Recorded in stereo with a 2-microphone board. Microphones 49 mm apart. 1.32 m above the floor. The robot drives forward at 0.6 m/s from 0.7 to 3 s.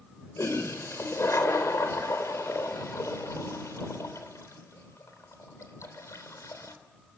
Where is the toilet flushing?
70° left (ahead or behind), 3.5 m; by 6.8 s 80° left, 3 m.